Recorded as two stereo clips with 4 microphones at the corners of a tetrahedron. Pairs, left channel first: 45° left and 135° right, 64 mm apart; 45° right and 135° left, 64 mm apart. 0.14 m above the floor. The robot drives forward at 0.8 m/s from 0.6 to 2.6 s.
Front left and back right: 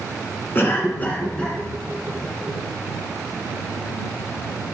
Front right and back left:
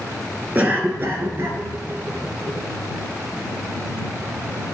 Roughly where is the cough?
Left.